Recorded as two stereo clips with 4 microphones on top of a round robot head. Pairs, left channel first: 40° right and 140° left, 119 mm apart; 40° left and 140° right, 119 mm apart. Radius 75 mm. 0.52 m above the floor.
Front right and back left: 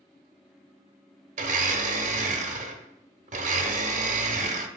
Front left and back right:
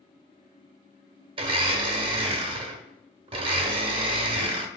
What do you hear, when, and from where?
1.4 s a blender: 170° left, 0.6 m